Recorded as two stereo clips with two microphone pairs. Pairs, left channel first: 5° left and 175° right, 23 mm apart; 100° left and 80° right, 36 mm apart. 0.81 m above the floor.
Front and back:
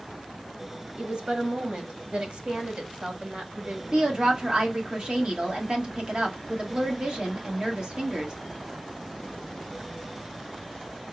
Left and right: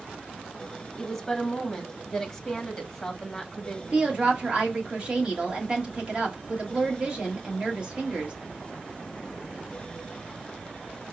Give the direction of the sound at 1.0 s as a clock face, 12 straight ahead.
6 o'clock.